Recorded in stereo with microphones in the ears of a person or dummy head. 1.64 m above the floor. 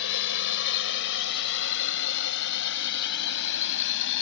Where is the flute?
I don't hear a flute.